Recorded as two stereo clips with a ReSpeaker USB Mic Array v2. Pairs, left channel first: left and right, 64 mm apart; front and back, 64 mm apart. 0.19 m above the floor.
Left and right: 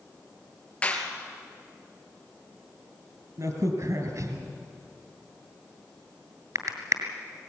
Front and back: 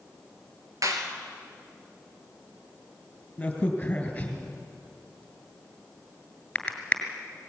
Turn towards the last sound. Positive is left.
turn(degrees=-70)